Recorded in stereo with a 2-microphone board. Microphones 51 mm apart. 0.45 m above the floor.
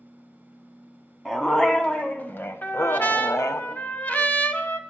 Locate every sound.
1.2 s a dog barking: 10° left (ahead or behind), 1.4 m; by 3.6 s 75° left (ahead or behind), 0.9 m
2.6 s a trumpet: 35° left (ahead or behind), 0.9 m